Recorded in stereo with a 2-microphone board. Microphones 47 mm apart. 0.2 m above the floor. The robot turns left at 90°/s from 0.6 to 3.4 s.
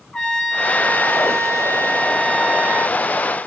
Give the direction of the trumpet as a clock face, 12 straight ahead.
7 o'clock.